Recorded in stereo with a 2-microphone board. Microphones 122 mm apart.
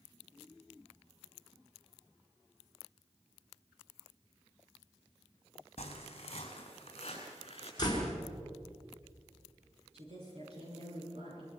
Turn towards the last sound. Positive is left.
turn(degrees=-60)  # may be behind; listen again after turning